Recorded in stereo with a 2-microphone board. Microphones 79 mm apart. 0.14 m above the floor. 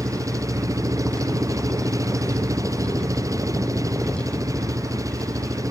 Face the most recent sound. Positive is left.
turn(degrees=-40)  # may be behind; listen again after turning